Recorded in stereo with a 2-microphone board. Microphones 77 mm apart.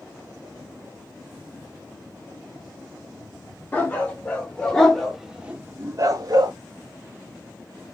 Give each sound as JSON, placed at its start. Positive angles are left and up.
{"t": 3.7, "sound": "a dog barking", "side_deg": 20, "distance_m": 2.0}